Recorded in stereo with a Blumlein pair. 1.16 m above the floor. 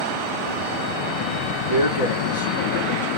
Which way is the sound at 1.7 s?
70° left.